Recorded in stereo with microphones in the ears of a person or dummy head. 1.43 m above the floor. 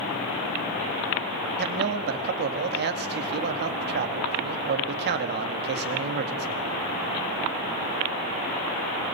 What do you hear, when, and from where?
1.6 s a man speaking: 50° right (ahead or behind), 2 m